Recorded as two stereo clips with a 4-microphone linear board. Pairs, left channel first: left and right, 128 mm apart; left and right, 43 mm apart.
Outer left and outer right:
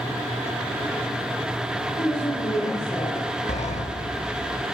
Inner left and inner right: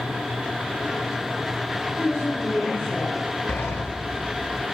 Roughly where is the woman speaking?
Left.